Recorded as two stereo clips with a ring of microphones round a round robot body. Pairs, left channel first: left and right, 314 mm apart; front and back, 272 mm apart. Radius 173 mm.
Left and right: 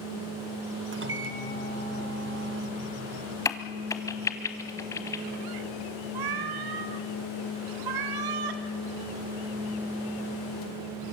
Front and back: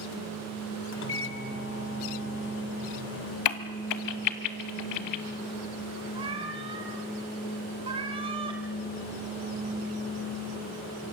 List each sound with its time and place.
0.9 s a microwave: 40° right, 1.8 m
3.5 s a crack: 10° left, 1.2 m
6.2 s a cat meowing: 105° right, 1.5 m